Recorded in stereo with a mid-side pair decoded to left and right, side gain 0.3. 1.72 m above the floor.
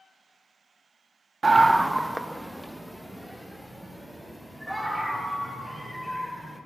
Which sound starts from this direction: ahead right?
A scream, at 1.4 s.